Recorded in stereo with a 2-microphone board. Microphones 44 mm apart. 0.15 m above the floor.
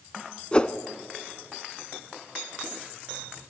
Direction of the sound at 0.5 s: 25° left (ahead or behind).